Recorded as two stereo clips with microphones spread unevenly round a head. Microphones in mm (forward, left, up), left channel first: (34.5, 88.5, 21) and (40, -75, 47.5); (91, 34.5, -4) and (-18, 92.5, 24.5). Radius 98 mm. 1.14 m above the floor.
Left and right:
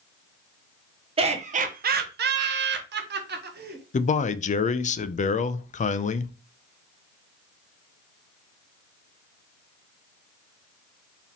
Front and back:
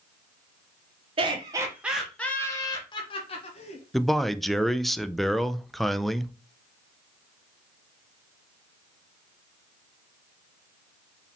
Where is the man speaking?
55° left, 0.5 m.